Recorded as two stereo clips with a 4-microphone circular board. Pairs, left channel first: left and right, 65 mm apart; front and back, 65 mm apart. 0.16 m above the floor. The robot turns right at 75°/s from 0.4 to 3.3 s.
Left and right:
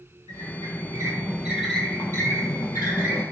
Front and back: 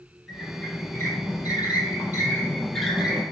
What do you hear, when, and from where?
0.3 s a squeak: 95° right, 0.6 m; by 3.2 s 120° left, 0.6 m